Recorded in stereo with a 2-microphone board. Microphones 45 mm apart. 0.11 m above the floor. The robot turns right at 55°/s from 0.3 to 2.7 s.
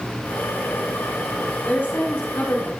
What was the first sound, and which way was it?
A woman speaking, 45° left.